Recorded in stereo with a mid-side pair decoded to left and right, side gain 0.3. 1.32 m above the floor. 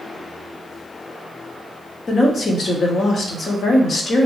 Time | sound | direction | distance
2.1 | a woman speaking | 65° left | 0.9 m